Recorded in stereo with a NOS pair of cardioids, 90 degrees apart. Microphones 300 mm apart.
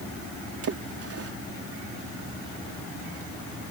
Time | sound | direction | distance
0.6 | a splash | 50° right | ?